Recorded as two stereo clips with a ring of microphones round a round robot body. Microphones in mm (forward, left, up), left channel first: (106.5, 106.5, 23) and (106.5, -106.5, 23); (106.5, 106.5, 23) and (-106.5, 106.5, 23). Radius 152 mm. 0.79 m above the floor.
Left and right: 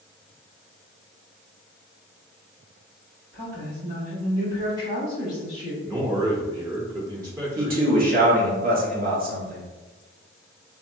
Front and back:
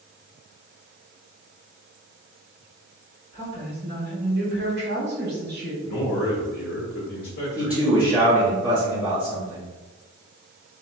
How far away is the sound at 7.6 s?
About 0.9 m.